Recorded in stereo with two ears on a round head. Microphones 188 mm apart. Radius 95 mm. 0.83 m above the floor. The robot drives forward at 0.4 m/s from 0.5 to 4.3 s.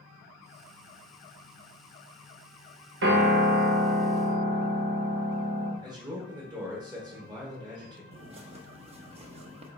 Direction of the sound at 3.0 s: 55° right (ahead or behind).